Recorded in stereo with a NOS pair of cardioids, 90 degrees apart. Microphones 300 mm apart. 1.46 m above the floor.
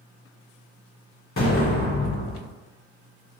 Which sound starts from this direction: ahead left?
An explosion, at 1.4 s.